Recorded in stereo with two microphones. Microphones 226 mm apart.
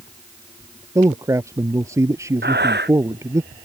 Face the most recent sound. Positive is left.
turn(degrees=-50)  # may be behind; listen again after turning